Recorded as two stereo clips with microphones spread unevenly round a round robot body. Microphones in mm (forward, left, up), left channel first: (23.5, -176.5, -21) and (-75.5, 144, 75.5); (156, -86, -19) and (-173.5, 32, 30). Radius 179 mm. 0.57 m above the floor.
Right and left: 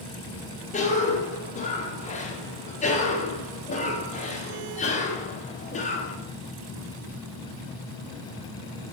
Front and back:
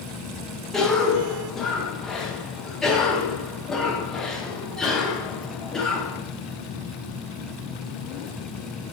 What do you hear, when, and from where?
0.7 s a cough: 100° right, 1.2 m